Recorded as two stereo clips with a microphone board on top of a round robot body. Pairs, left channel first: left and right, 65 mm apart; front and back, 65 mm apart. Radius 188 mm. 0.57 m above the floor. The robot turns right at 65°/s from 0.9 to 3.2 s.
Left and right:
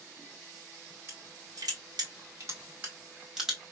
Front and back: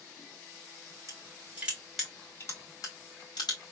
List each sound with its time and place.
1.1 s crushing: 145° right, 2.5 m; by 3.7 s 5° right, 2.5 m